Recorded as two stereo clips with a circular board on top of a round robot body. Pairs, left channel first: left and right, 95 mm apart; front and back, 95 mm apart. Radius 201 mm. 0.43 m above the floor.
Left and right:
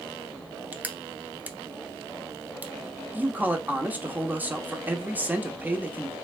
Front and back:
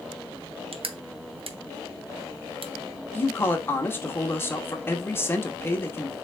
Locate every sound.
0.7 s crushing: 160° right, 0.7 m
3.1 s a man speaking: 35° right, 1.1 m